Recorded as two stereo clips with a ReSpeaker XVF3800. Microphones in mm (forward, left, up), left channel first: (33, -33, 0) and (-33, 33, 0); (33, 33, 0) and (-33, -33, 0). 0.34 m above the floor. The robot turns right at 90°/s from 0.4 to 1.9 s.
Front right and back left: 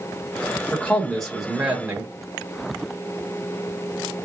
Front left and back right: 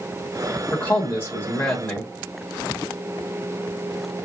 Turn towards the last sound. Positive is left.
turn(degrees=100)